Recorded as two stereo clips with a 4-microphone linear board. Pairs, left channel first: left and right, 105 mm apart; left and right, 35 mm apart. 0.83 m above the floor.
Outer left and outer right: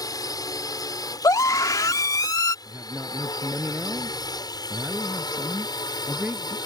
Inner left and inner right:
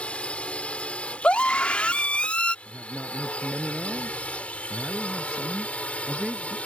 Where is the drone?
40° left (ahead or behind).